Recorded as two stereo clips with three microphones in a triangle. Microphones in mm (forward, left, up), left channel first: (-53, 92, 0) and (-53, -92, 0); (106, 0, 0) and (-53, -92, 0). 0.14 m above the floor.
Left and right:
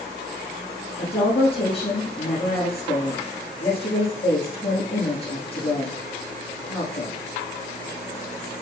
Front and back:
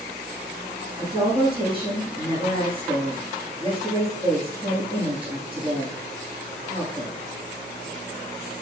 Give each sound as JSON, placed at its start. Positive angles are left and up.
{"t": 1.0, "sound": "a woman speaking", "azimuth_deg": 150, "distance_m": 5.5}